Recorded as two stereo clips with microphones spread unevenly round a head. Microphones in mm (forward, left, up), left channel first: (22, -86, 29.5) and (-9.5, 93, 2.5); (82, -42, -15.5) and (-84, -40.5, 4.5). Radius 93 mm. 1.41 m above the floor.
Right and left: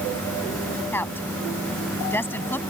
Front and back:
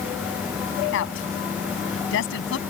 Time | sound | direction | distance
0.9 | a woman speaking | straight ahead | ?